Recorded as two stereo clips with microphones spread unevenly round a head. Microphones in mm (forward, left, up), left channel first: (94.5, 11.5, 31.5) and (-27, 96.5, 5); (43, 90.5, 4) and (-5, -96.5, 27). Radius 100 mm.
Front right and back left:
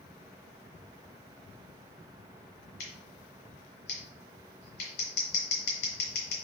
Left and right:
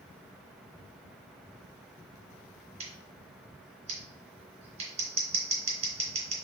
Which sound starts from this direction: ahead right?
Scissors, at 2.8 s.